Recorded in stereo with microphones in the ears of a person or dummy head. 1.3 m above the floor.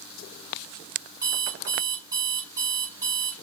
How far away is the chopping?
I don't hear chopping.